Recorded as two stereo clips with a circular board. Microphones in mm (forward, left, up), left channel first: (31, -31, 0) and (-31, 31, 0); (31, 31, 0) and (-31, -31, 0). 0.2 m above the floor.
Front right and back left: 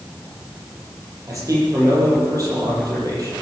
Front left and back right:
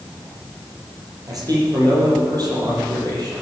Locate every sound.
1.3 s a man speaking: 175° right, 7.5 m